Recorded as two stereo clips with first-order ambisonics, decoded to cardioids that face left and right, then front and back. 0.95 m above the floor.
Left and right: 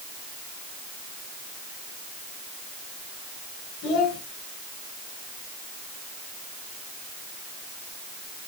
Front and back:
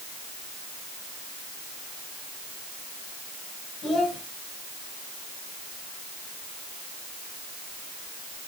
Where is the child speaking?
60° left, 3 m.